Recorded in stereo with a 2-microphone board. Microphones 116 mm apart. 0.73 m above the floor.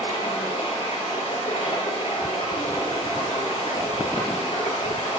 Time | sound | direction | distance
0.0 | running water | 85° left | 5 m